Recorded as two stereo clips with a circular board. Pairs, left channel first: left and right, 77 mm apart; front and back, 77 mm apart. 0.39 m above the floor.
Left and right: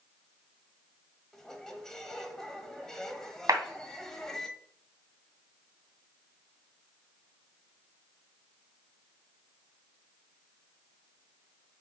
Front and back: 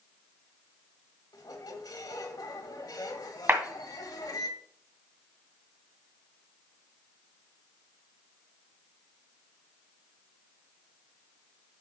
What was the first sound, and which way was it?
A squeak, 5° left.